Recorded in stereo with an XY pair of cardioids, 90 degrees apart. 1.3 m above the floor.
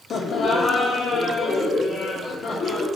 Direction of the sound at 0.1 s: 65° left.